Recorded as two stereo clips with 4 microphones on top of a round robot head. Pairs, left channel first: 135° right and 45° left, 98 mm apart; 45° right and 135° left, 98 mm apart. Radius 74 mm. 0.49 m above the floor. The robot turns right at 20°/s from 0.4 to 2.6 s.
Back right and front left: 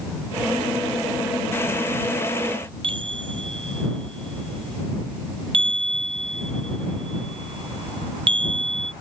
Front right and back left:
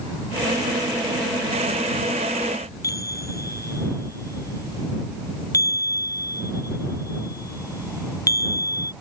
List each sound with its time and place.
2.8 s a chime: 15° left